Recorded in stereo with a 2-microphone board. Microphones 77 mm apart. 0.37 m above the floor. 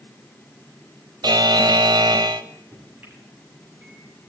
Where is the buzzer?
75° right (ahead or behind), 0.5 m.